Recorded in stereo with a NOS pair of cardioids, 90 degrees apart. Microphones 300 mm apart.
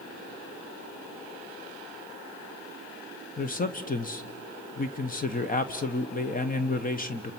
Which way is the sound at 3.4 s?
30° left.